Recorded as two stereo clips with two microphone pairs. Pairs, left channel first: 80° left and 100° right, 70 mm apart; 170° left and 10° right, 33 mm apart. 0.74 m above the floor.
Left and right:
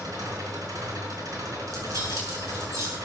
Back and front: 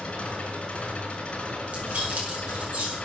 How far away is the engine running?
About 5 m.